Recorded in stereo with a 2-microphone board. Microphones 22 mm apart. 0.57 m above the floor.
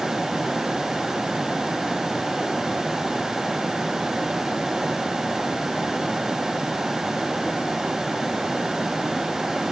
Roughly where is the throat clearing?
No throat clearing in this recording.